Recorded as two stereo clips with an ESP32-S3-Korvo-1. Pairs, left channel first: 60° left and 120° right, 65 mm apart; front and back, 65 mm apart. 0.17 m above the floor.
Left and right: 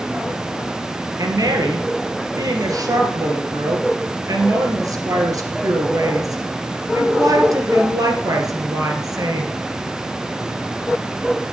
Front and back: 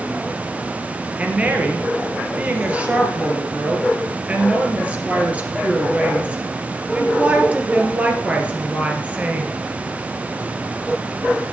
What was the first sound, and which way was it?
A woman speaking, 110° right.